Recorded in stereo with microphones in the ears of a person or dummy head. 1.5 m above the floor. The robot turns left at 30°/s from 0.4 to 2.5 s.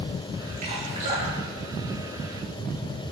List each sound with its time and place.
0.6 s dripping: 60° right (ahead or behind), 3 m; by 2.7 s centre (ahead or behind), 3 m